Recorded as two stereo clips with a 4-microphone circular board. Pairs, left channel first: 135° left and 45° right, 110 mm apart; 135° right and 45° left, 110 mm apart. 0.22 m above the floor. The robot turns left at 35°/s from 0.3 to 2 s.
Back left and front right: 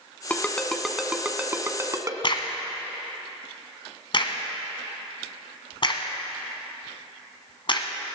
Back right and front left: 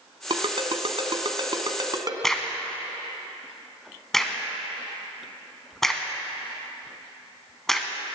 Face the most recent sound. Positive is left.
turn(degrees=140)